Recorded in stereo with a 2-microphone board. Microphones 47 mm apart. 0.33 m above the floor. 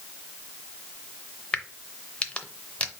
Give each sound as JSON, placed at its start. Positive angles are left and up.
{"t": 1.5, "sound": "a crack", "side_deg": 25, "distance_m": 0.7}